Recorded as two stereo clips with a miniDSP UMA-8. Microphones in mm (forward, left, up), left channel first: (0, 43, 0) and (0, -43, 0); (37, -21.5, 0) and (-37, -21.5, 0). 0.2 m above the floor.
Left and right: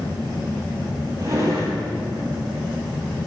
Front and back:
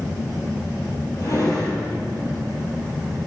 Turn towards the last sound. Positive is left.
turn(degrees=-40)